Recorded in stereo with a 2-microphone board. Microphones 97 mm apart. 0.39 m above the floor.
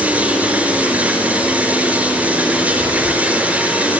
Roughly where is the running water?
Centre.